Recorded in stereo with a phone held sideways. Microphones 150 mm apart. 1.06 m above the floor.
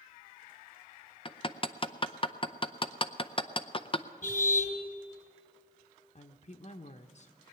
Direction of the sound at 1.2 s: 35° left (ahead or behind).